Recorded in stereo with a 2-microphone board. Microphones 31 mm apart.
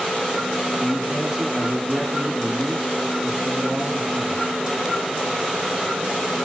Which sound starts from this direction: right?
A man speaking, at 0.8 s.